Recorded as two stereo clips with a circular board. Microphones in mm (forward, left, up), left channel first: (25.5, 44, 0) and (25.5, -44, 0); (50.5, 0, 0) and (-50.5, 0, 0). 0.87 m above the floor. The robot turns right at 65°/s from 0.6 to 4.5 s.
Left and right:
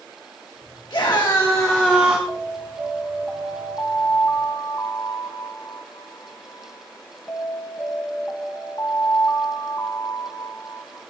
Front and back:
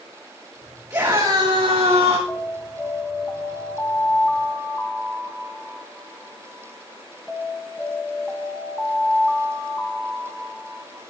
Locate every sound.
0.9 s a scream: 120° left, 1.7 m; by 2.2 s 155° right, 1.7 m
2.3 s an alarm: 65° right, 1.7 m; by 11.0 s 80° left, 1.7 m